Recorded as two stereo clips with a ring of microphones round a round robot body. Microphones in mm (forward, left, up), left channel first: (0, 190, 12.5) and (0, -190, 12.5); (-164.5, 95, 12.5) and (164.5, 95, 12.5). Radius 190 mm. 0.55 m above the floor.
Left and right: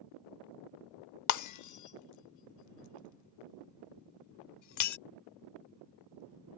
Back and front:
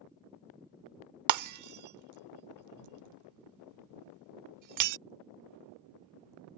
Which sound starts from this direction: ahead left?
Breaking glass, at 1.3 s.